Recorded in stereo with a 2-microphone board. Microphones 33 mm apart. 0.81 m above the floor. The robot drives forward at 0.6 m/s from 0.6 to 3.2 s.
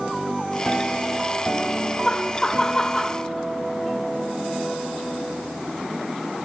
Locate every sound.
2.0 s laughter: 10° left (ahead or behind), 0.9 m; by 3.2 s 15° left (ahead or behind), 0.7 m